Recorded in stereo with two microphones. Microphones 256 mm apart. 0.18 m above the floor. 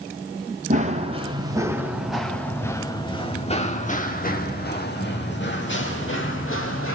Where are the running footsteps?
30° right (ahead or behind), 2 m; by 7.0 s 55° left (ahead or behind), 4 m.